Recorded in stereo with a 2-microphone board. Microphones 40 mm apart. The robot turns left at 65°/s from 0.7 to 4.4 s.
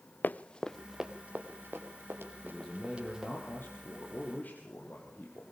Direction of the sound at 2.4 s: Straight behind.